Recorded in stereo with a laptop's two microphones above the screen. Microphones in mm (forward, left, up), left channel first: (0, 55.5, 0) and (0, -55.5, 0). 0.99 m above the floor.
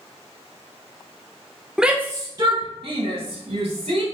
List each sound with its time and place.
1.8 s a shout: 5° right (ahead or behind), 0.8 m; by 4.0 s 70° right (ahead or behind), 2.5 m